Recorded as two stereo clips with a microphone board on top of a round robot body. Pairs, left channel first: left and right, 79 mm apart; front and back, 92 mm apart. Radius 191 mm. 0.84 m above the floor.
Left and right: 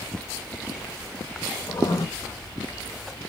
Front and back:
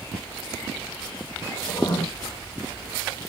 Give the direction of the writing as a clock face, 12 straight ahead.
11 o'clock.